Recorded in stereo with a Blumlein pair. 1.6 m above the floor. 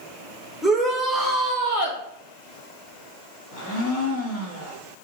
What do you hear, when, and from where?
0.6 s a shout: 5° left, 1.9 m; by 2.0 s 65° left, 1.0 m
3.5 s a blender: 45° left, 2 m